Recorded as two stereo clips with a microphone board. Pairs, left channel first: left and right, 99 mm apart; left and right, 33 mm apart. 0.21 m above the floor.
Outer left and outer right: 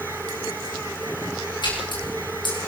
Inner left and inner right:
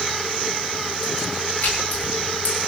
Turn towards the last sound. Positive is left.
turn(degrees=50)  # may be behind; listen again after turning